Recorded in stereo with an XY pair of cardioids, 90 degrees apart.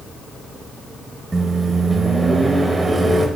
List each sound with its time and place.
1.3 s a microwave: 25° right, 1.6 m